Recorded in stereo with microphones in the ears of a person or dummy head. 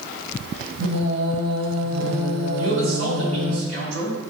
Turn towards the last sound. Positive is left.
turn(degrees=-85)